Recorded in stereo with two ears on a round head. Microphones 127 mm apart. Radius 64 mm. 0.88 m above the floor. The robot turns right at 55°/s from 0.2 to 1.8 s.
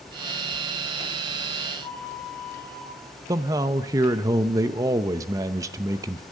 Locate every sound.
1.8 s a flute: 10° left (ahead or behind), 3.5 m
3.3 s a man speaking: 25° right (ahead or behind), 0.6 m